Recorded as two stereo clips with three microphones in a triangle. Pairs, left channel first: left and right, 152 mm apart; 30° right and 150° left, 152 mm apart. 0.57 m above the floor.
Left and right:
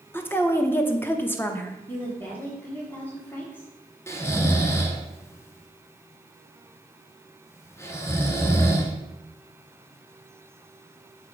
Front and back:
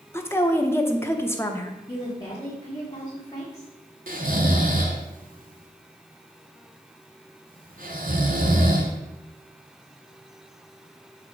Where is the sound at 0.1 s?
30° left, 0.7 m.